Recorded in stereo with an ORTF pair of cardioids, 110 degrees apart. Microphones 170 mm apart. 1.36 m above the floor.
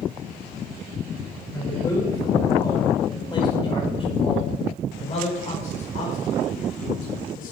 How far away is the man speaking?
About 6.5 m.